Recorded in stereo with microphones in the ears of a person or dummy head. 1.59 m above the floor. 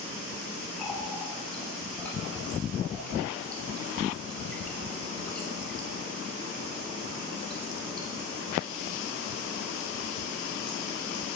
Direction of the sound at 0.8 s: 5° left (ahead or behind).